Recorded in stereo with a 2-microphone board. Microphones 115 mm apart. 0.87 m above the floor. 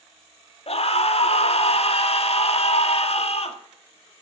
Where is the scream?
60° left (ahead or behind), 1.7 m.